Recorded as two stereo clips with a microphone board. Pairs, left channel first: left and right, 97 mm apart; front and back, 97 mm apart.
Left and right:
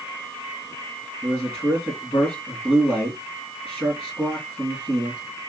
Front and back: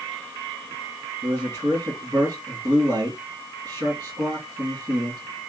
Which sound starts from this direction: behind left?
A man speaking, at 1.2 s.